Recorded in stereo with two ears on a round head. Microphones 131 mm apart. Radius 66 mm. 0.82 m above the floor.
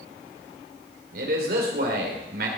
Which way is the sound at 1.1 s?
75° right (ahead or behind).